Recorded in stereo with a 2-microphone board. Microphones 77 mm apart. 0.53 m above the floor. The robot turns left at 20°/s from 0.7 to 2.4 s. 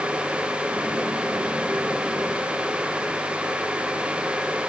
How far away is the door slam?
No door slam in this recording.